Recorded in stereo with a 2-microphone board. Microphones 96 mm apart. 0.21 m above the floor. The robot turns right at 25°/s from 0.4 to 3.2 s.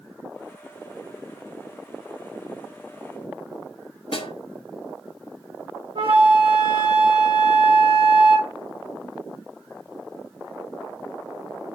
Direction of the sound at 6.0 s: 65° right (ahead or behind).